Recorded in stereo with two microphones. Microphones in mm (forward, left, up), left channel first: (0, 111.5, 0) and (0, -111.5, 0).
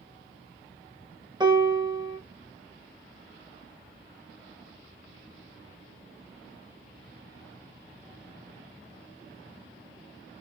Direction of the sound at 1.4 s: 20° right (ahead or behind).